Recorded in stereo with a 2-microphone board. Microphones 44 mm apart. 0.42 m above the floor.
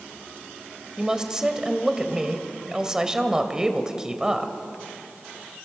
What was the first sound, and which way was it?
A woman speaking, 15° right (ahead or behind).